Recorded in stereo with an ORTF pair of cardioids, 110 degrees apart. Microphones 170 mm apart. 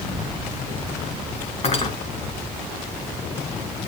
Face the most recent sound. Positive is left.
turn(degrees=40)